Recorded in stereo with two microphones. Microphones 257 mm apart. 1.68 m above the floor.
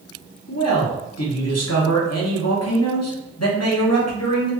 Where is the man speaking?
75° left (ahead or behind), 1.3 m.